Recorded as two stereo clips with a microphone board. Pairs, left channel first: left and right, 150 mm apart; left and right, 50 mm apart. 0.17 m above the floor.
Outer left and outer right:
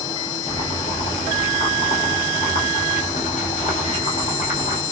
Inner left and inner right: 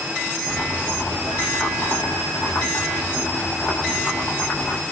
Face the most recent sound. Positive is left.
turn(degrees=60)  # may be behind; listen again after turning